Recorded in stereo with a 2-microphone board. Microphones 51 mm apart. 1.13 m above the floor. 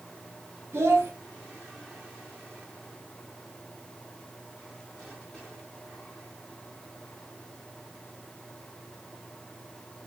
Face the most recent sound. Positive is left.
turn(degrees=-55)  # may be behind; listen again after turning